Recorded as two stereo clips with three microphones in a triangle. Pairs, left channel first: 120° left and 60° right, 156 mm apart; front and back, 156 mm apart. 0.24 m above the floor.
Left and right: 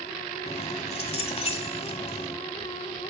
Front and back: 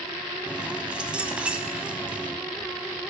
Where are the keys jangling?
100° left, 1.1 m.